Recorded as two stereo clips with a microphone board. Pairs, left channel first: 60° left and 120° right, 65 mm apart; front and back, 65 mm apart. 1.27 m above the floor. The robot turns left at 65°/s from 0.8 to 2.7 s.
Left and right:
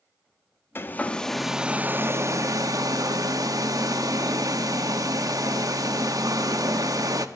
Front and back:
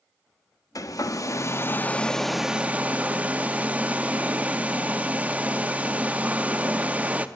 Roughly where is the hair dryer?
Ahead.